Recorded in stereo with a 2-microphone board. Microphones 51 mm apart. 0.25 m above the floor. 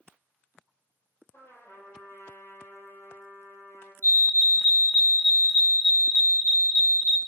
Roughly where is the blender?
I don't hear a blender.